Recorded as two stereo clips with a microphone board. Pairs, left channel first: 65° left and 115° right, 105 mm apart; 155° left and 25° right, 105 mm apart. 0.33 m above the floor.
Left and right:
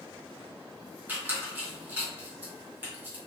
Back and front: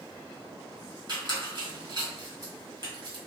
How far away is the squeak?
About 1.3 m.